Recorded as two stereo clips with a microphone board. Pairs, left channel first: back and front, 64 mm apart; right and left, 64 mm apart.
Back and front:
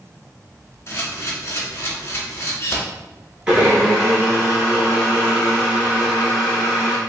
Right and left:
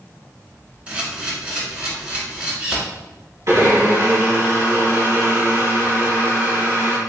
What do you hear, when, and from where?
0.9 s a camera shutter: 155° left, 1.2 m
3.5 s a blender: 70° left, 1.8 m